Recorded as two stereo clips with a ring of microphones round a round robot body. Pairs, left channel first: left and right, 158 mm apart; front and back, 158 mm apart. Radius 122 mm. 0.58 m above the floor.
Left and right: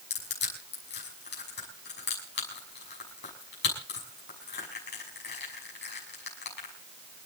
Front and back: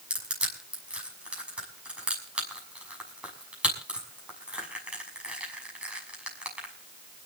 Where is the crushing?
95° left, 6 m.